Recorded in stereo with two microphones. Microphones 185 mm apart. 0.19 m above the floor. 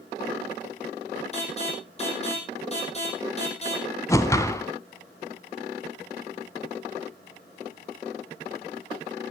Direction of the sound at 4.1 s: 15° left (ahead or behind).